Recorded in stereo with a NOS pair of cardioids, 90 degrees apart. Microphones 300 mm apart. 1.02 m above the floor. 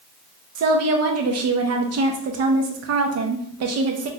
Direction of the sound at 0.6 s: 60° right.